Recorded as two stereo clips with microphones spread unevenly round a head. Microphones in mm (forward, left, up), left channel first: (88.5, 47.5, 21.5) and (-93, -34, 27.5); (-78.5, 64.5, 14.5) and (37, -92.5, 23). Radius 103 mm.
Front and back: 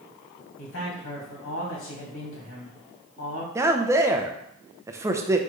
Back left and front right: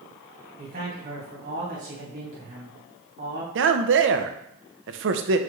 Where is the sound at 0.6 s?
5° left, 2 m.